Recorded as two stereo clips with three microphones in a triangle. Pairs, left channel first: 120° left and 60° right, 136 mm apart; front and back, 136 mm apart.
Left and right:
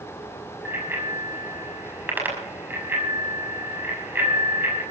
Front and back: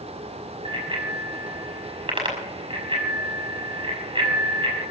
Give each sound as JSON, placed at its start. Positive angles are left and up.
{"t": 0.7, "sound": "a bicycle bell", "azimuth_deg": -135, "distance_m": 5.5}